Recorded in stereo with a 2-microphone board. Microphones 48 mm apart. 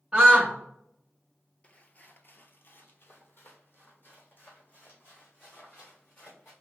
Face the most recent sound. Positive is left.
turn(degrees=35)  # may be behind; listen again after turning